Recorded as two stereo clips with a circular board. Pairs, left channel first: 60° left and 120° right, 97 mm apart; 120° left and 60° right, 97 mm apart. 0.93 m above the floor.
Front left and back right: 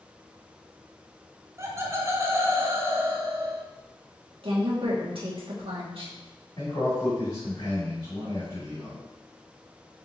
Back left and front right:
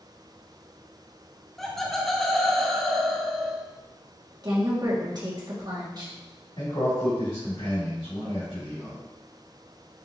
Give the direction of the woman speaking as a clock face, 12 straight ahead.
3 o'clock.